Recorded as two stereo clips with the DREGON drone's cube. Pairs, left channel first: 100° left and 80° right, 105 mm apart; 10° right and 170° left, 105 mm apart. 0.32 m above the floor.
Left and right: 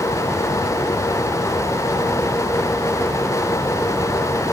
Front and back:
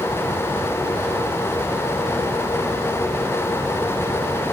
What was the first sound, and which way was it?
Only background noise.